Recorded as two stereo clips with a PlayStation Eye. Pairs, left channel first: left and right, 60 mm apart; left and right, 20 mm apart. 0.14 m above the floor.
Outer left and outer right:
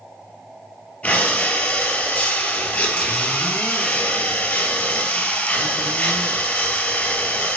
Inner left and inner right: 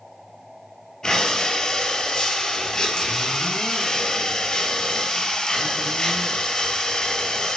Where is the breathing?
30° left (ahead or behind), 0.8 m.